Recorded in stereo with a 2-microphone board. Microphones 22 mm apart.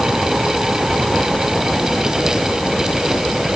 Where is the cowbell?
I don't hear a cowbell.